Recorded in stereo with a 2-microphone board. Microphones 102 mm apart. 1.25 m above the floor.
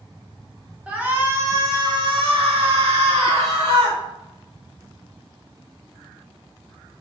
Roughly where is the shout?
Centre.